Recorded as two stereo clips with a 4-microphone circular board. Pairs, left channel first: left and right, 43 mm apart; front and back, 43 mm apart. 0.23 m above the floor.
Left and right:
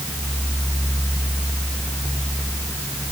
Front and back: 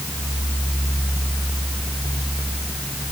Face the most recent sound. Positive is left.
No sound to turn to.